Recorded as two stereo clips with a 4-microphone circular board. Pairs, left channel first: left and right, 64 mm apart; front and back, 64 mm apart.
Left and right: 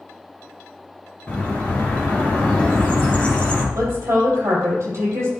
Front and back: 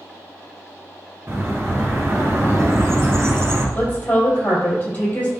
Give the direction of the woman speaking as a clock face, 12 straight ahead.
2 o'clock.